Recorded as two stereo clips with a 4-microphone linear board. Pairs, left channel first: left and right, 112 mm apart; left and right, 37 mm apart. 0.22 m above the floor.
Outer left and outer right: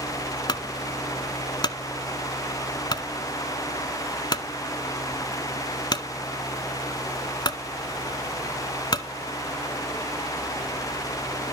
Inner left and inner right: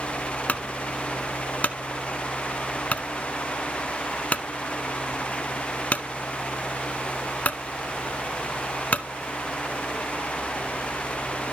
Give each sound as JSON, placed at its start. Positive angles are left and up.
{"t": 0.5, "sound": "a clunk", "side_deg": 40, "distance_m": 0.7}